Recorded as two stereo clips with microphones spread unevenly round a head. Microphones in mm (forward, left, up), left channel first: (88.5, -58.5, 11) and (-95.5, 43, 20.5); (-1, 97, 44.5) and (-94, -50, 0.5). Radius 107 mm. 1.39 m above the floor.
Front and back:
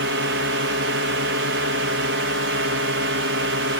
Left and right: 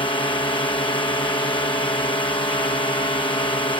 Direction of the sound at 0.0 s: 125° left.